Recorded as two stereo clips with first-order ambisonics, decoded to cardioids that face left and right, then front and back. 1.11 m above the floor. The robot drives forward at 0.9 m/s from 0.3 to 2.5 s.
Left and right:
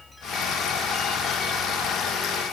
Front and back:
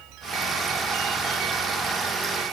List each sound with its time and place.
Only background noise.